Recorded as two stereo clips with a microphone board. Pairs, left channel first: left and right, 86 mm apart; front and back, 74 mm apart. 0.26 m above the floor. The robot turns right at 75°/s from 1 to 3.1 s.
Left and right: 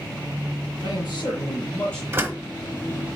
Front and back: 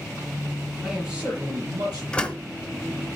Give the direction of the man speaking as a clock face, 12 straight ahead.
9 o'clock.